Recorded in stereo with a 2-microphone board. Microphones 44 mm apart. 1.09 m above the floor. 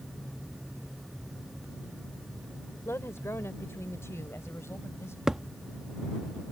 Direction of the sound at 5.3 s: 15° right (ahead or behind).